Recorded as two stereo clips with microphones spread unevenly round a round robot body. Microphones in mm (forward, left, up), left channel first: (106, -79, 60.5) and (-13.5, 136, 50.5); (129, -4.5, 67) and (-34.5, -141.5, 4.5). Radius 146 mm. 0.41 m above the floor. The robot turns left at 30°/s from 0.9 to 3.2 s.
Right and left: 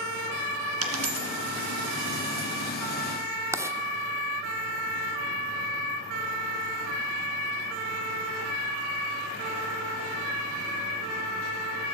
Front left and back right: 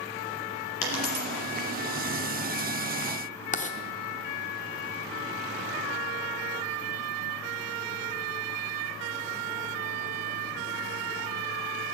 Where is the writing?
70° left, 0.9 m.